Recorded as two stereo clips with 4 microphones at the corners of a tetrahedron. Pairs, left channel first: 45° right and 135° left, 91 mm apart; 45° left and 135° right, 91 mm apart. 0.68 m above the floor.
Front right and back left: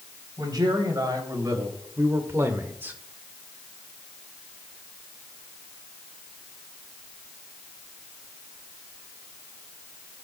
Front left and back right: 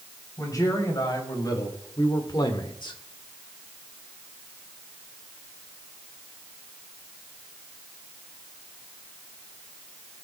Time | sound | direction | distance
0.4 | a man speaking | 95° left | 3 m